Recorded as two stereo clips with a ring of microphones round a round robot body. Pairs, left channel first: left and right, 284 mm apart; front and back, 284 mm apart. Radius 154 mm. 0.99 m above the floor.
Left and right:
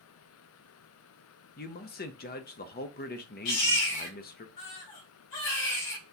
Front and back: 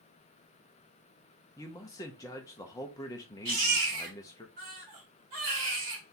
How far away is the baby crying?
About 2 m.